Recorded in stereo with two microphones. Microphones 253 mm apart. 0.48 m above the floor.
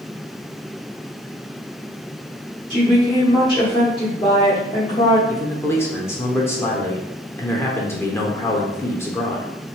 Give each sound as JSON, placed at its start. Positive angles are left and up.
{"t": 2.7, "sound": "a woman speaking", "side_deg": 20, "distance_m": 1.0}
{"t": 5.3, "sound": "a man speaking", "side_deg": 10, "distance_m": 0.9}